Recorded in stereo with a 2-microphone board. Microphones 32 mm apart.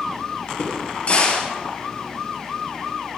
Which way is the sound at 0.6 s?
45° left (ahead or behind).